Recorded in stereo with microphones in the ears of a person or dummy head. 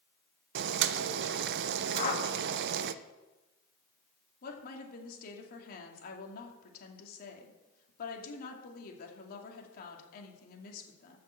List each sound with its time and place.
0.6 s boiling: 70° right (ahead or behind), 0.6 m
1.9 s a whoosh: 45° left (ahead or behind), 1.7 m
4.4 s a woman speaking: 55° left (ahead or behind), 2.5 m